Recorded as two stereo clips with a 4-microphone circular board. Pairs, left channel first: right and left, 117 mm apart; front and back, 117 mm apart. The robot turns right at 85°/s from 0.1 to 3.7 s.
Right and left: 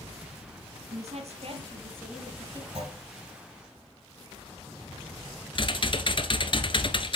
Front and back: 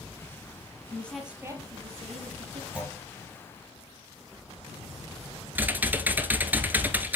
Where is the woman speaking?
65° left, 3 m; by 2.6 s 145° right, 3 m.